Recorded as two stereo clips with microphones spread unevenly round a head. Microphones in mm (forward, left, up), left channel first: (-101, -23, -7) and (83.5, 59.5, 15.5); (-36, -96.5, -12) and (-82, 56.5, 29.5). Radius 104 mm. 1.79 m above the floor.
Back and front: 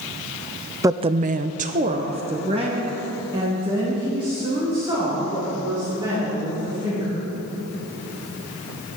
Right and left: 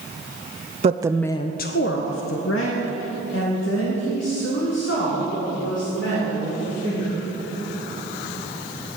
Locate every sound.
0.8 s a woman speaking: 90° left, 0.6 m; by 7.2 s 50° right, 7 m